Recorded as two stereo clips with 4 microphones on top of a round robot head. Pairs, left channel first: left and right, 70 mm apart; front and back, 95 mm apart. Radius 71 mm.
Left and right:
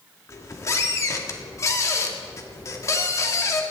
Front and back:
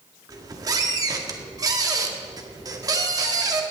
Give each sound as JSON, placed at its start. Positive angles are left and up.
{"t": 0.3, "sound": "a squeak", "azimuth_deg": 130, "distance_m": 2.0}